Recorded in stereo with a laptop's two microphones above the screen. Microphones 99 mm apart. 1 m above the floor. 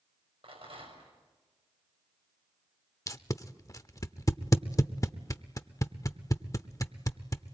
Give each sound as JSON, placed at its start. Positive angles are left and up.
{"t": 0.4, "sound": "a rattle", "side_deg": -70, "distance_m": 6.0}
{"t": 3.1, "sound": "tape being pulled", "side_deg": 35, "distance_m": 0.7}